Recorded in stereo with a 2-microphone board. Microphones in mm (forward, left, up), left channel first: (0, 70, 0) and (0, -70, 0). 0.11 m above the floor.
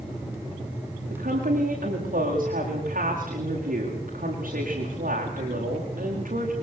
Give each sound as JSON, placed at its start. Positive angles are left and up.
{"t": 1.1, "sound": "a woman speaking", "side_deg": -80, "distance_m": 9.5}